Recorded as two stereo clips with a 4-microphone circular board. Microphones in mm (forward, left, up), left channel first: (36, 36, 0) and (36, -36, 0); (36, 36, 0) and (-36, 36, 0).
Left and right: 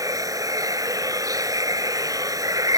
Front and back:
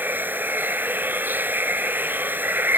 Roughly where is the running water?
Behind right.